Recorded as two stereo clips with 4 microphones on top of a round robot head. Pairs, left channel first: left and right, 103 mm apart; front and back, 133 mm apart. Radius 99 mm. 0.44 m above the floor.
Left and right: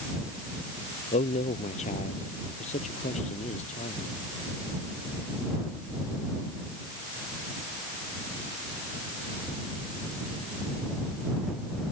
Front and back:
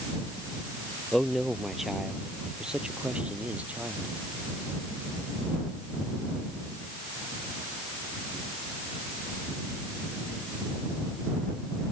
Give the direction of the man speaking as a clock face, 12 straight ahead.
9 o'clock.